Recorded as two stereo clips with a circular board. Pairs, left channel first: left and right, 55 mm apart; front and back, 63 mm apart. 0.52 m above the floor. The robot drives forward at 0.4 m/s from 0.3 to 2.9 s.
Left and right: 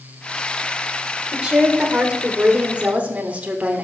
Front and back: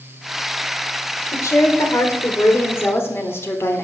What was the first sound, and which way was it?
A woman speaking, 20° right.